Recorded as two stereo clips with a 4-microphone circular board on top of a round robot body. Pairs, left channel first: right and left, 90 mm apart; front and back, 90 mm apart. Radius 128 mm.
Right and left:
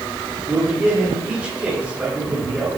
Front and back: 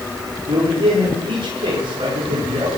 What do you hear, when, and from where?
0.5 s a man speaking: 165° left, 9 m